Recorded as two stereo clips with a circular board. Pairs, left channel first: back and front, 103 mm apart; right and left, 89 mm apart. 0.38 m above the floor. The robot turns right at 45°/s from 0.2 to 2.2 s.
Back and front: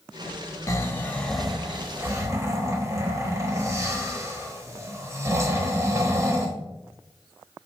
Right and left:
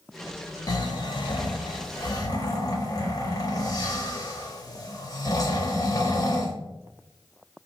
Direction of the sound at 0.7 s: 125° right.